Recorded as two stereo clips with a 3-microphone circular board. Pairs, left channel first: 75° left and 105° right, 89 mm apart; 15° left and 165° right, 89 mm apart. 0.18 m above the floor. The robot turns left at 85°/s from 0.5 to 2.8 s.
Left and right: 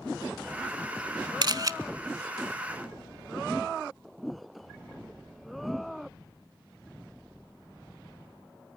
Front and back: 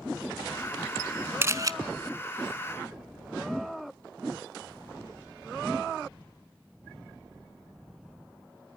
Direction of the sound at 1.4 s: 110° right.